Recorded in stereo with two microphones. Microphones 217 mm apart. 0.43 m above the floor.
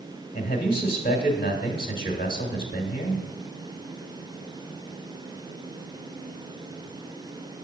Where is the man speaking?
25° left (ahead or behind), 1.2 m.